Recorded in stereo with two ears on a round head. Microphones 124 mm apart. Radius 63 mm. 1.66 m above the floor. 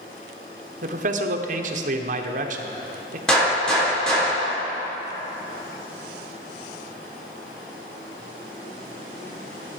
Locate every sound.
0.8 s a man speaking: 60° right (ahead or behind), 1.0 m
3.3 s a gunshot: 5° left (ahead or behind), 3.5 m